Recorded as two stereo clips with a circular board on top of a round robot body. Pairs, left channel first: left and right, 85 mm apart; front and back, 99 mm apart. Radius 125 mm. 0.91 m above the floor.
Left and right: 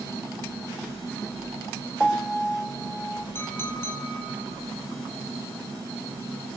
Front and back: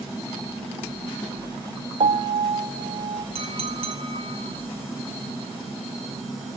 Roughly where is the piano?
Behind.